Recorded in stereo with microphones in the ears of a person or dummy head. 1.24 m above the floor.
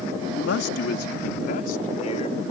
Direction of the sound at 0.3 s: 80° left.